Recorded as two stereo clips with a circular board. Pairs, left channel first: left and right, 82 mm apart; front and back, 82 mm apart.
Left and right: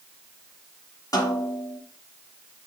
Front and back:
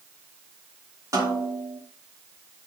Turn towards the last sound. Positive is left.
turn(degrees=130)